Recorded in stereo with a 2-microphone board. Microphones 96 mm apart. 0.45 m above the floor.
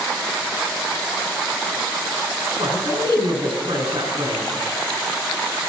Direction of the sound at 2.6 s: 70° right (ahead or behind).